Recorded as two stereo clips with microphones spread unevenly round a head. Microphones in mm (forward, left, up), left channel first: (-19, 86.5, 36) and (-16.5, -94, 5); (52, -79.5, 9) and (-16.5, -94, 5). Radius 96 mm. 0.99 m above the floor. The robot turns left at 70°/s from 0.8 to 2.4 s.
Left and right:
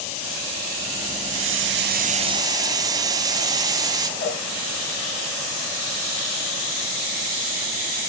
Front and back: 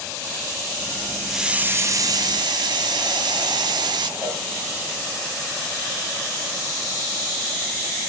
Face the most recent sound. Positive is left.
turn(degrees=125)